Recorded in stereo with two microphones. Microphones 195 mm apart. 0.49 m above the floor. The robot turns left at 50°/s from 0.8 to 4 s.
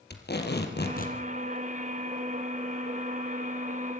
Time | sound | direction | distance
0.1 | tape being pulled | 60° left (ahead or behind) | 3.5 m